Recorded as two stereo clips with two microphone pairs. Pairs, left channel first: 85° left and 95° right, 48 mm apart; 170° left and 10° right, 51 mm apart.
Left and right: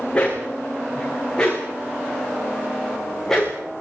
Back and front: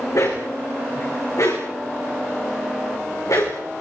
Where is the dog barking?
160° left, 9 m; by 3.6 s 170° left, 10.5 m.